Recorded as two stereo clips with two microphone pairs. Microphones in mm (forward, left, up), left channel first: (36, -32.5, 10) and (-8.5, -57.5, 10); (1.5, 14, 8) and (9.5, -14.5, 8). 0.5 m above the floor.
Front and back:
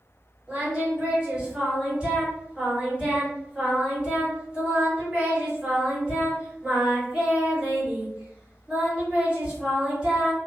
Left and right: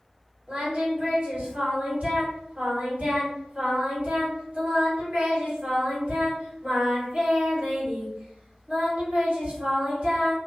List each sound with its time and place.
0.5 s singing: 85° right, 2.0 m